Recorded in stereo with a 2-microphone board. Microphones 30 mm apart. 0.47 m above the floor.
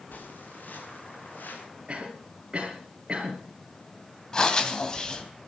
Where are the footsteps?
75° left (ahead or behind), 6 m; by 1.6 s 85° left, 6.5 m.